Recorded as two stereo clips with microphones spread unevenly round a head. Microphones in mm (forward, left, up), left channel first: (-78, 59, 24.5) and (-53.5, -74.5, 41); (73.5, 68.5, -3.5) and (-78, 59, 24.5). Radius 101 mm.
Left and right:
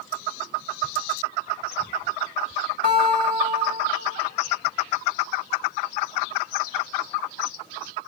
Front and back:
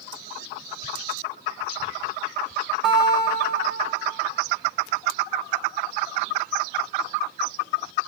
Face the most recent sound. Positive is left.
turn(degrees=-100)